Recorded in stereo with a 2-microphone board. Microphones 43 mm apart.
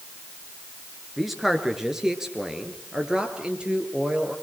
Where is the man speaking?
5° right (ahead or behind), 3 m; by 4.3 s 25° right (ahead or behind), 5 m.